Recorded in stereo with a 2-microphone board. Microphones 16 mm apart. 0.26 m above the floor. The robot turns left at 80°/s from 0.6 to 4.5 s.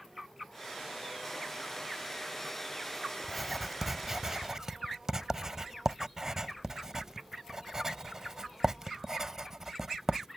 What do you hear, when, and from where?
3.2 s writing: 10° left (ahead or behind); by 10.3 s 30° right (ahead or behind)